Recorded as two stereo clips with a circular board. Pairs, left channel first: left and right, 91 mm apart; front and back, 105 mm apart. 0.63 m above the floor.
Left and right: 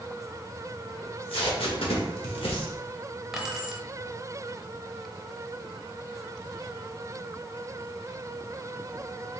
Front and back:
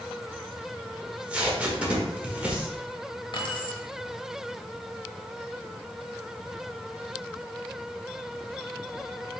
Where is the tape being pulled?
100° left, 0.9 m.